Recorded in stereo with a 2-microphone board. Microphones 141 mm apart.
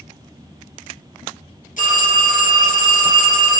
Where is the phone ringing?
70° left (ahead or behind), 2 m.